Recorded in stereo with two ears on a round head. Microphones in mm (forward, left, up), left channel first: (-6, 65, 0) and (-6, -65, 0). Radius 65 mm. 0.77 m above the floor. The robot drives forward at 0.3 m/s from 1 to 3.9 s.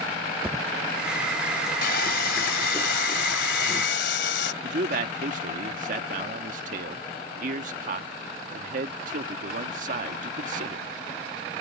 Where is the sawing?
70° left (ahead or behind); by 4.5 s 80° left.